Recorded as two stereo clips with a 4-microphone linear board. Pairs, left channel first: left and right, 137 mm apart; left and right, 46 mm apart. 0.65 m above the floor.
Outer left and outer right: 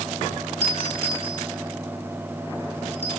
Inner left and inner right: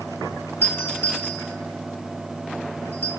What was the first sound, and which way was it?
A doorbell, 50° left (ahead or behind).